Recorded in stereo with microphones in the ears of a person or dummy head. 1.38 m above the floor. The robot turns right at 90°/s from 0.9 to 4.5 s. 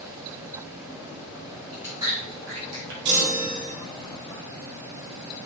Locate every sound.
1.7 s chewing: 5° right (ahead or behind), 4 m; by 3.0 s 65° right (ahead or behind), 4 m
3.0 s a chime: 55° right, 2.5 m; by 3.7 s 5° left, 2.5 m